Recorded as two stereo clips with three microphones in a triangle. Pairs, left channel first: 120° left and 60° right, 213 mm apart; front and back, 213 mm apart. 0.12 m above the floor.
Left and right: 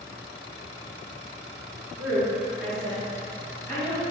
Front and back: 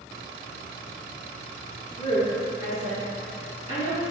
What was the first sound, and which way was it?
A woman speaking, 5° left.